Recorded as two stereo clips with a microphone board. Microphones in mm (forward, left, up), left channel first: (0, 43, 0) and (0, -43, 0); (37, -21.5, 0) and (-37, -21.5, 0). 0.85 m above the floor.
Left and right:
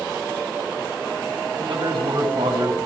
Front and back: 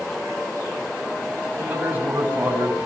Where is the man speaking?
115° right, 7 m.